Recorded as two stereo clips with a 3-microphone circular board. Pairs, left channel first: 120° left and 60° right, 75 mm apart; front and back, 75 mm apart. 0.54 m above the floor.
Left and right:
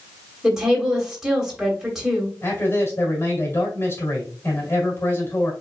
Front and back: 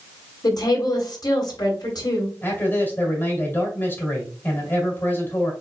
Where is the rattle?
No rattle in this recording.